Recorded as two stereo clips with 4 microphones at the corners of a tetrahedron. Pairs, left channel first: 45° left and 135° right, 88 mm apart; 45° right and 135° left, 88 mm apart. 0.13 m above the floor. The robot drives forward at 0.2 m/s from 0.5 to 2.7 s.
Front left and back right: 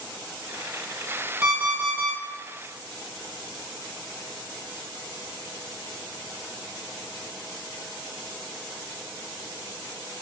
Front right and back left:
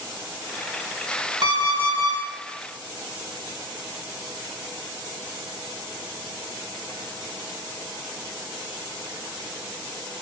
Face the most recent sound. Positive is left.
turn(degrees=165)